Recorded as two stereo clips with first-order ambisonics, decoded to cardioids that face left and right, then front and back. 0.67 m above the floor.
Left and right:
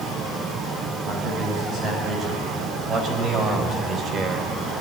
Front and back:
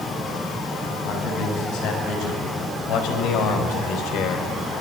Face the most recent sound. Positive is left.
turn(degrees=-30)